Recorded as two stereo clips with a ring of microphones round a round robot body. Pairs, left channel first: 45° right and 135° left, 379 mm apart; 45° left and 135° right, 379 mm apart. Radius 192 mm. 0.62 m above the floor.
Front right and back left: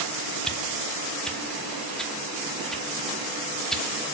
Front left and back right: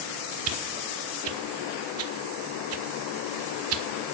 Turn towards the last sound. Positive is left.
turn(degrees=-135)